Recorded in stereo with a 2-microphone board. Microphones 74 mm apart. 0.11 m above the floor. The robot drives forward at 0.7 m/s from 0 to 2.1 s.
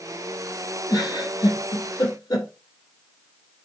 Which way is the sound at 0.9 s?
65° left (ahead or behind).